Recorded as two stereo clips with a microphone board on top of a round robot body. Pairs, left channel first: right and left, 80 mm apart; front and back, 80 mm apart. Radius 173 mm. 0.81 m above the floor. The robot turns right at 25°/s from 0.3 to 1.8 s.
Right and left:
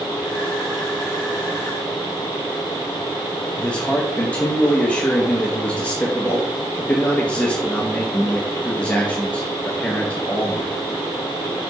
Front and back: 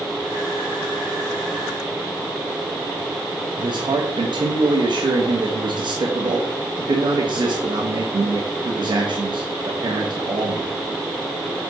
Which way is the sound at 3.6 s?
165° right.